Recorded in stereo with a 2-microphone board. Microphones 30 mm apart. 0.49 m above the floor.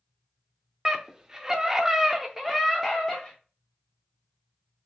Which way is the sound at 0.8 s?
20° right (ahead or behind).